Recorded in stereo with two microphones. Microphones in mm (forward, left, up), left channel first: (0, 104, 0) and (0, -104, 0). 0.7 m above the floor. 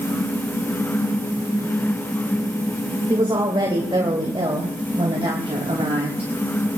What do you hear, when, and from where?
3.1 s a woman speaking: 20° right (ahead or behind), 2.5 m; by 6.3 s 30° right (ahead or behind), 4.5 m